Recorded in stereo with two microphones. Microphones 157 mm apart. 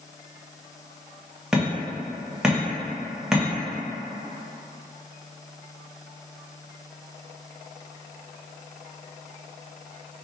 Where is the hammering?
5° right (ahead or behind), 1.0 m.